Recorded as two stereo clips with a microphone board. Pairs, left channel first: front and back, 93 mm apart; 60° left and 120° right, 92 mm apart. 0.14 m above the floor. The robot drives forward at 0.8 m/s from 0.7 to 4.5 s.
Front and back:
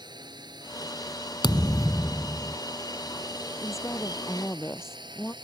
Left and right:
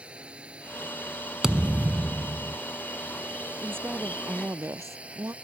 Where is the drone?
165° left.